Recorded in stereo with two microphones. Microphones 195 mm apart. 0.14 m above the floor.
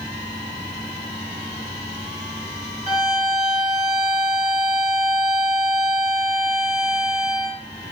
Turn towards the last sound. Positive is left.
turn(degrees=35)  # may be behind; listen again after turning